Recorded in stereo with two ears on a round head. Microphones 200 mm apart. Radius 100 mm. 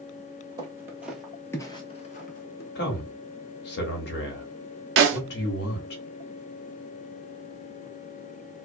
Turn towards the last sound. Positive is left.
turn(degrees=-55)  # may be behind; listen again after turning